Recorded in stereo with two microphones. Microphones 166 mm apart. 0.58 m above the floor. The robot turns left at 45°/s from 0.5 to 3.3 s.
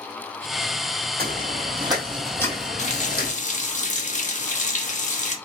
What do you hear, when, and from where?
1.2 s footsteps: 70° right (ahead or behind), 1.9 m; by 3.3 s 70° left (ahead or behind), 1.5 m
2.8 s a running tap: 45° left (ahead or behind), 0.7 m; by 5.3 s 50° left (ahead or behind), 0.7 m